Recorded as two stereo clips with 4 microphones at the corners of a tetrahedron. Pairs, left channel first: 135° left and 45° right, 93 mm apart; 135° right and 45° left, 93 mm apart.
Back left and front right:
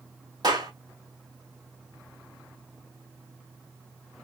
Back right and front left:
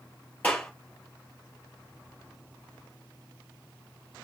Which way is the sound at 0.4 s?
65° right.